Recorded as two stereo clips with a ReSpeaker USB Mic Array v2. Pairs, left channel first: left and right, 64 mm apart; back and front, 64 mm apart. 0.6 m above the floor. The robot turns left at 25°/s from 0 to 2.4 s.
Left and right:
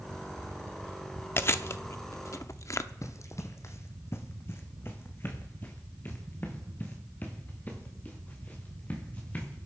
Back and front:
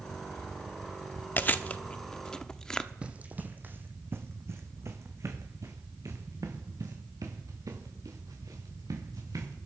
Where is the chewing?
130° left, 0.6 m; by 2.9 s 105° left, 0.6 m.